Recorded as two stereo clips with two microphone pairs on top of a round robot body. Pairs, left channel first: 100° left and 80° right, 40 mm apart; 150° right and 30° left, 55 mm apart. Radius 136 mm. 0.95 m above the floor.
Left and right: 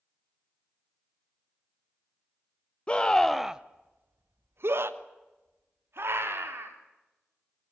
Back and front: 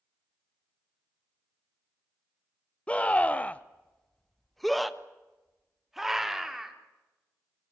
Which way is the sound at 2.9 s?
150° left.